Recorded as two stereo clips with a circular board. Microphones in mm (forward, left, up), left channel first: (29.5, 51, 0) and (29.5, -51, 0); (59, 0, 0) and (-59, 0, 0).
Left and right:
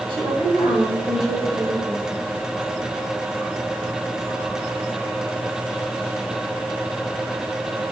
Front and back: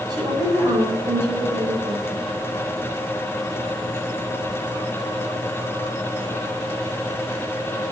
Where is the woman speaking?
125° right, 4.5 m.